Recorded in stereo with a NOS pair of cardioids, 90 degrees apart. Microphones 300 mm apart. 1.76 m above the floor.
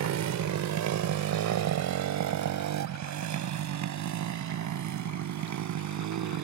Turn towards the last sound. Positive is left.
turn(degrees=-70)